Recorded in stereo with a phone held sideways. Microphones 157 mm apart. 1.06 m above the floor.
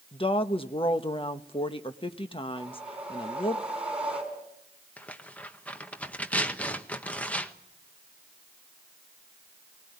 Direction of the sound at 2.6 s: 5° right (ahead or behind).